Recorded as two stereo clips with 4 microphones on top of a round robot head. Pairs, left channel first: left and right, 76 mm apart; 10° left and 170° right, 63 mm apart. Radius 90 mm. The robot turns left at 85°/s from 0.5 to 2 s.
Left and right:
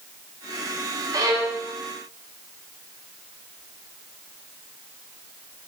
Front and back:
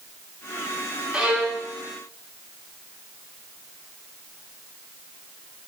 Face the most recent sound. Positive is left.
turn(degrees=-170)